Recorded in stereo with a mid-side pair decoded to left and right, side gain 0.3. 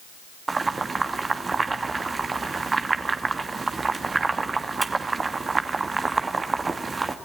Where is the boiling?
40° right, 2.5 m.